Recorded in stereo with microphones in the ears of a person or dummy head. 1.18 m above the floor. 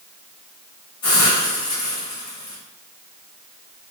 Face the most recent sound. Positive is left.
turn(degrees=20)  # may be behind; listen again after turning